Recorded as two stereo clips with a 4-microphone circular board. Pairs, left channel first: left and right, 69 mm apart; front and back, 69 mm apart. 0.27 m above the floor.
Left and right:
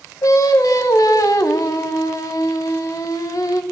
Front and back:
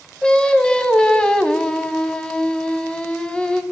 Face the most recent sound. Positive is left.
turn(degrees=75)